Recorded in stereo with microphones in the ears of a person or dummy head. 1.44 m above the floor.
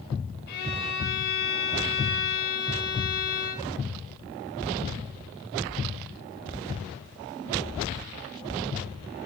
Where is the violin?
50° left (ahead or behind), 2.5 m.